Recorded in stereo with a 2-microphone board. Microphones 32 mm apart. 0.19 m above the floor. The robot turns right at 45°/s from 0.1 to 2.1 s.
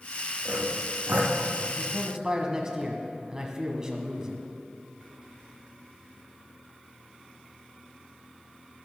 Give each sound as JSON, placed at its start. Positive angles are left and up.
{"t": 0.5, "sound": "sawing", "side_deg": -40, "distance_m": 2.5}
{"t": 1.8, "sound": "a man speaking", "side_deg": -25, "distance_m": 1.4}